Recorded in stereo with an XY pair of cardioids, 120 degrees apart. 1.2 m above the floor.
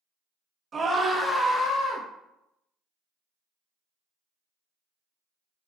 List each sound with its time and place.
0.7 s a scream: 30° right, 1.3 m; by 2.0 s 60° left, 1.2 m